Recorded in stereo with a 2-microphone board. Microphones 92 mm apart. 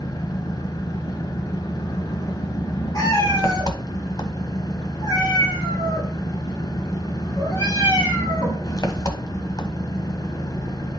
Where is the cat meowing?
40° left (ahead or behind), 5.5 m.